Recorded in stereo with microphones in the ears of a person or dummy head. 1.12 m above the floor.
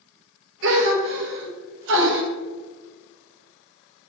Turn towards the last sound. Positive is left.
turn(degrees=-70)  # may be behind; listen again after turning